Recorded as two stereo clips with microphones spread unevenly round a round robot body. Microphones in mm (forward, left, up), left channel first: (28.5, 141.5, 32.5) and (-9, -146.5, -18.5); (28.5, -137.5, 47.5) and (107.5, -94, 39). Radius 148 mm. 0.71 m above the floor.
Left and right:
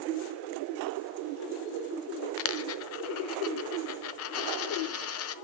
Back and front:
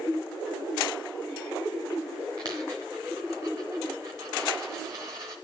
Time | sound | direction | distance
2.4 | a dropped coin | 105° left | 0.6 m